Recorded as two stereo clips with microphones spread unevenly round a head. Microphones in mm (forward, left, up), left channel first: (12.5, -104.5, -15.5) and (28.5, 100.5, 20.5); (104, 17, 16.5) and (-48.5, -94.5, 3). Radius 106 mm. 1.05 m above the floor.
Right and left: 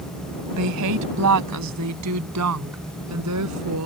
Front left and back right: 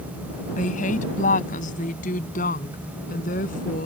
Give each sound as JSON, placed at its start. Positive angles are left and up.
{"t": 0.6, "sound": "a woman speaking", "azimuth_deg": 95}